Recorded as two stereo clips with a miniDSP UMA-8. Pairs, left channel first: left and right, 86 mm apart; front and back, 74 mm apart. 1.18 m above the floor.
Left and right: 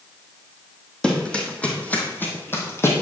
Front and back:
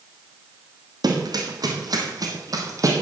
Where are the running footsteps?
170° left, 2.5 m; by 3.0 s 145° left, 2.5 m.